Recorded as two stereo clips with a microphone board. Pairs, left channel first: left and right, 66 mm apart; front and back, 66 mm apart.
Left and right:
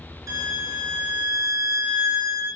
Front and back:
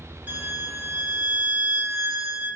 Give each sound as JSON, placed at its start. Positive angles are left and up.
{"t": 0.3, "sound": "a violin", "azimuth_deg": -120, "distance_m": 3.5}